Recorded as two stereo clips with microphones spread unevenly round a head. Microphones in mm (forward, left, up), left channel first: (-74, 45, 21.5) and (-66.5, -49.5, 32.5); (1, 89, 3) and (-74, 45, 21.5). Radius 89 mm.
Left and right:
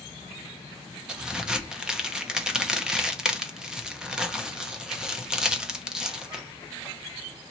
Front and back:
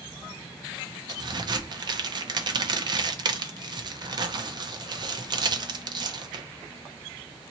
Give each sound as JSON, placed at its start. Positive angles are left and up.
{"t": 1.1, "sound": "a crack", "azimuth_deg": -175, "distance_m": 0.8}